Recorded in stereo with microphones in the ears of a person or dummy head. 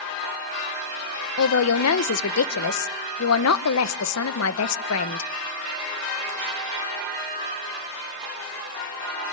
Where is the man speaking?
75° left (ahead or behind), 1.0 m.